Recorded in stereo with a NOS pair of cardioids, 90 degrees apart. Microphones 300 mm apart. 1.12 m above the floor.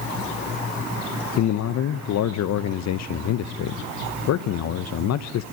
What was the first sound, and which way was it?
A man speaking, 60° left.